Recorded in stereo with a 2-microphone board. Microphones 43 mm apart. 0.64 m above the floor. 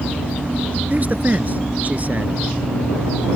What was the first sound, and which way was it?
A man speaking, 40° right (ahead or behind).